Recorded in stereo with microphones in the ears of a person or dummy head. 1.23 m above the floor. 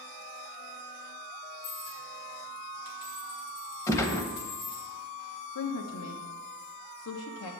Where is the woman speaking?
80° left, 1.0 m.